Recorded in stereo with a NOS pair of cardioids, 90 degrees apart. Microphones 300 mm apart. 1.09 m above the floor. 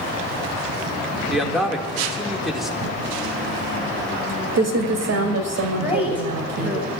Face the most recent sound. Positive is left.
turn(degrees=-5)